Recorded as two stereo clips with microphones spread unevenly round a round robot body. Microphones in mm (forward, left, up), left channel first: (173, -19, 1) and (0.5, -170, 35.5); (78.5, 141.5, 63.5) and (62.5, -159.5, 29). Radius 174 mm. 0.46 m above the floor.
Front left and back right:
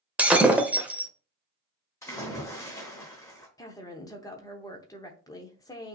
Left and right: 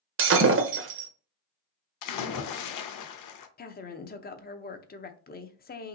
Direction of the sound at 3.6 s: 60° left.